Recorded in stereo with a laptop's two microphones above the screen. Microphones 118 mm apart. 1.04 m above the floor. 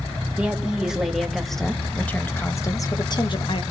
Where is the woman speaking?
10° right (ahead or behind), 2 m; by 3.6 s 55° left (ahead or behind), 1.2 m.